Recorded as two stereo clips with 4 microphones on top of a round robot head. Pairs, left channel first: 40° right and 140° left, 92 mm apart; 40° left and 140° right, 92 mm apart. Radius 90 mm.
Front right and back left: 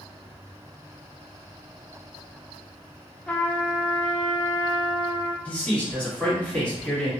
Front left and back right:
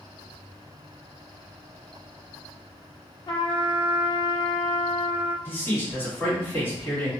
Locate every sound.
3.3 s a trumpet: 35° left, 0.8 m
5.5 s a man speaking: 20° left, 1.4 m